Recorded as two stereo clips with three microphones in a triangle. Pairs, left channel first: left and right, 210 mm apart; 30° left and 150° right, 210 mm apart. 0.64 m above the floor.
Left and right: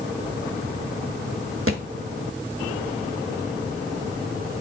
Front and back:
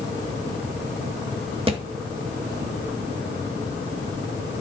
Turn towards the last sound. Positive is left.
turn(degrees=-85)